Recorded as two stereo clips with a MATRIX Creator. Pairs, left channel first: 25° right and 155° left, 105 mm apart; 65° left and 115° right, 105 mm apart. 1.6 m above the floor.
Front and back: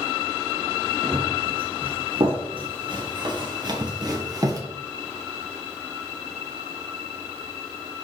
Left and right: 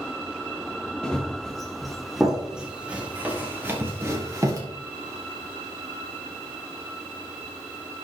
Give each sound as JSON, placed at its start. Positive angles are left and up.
{"t": 1.0, "sound": "running footsteps", "azimuth_deg": 150, "distance_m": 3.0}